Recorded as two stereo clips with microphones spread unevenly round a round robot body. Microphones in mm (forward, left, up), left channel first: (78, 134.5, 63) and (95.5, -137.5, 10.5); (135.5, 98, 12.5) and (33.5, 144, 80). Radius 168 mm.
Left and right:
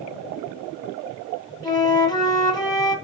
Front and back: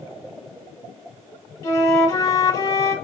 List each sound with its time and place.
1.6 s a flute: 15° left, 2.5 m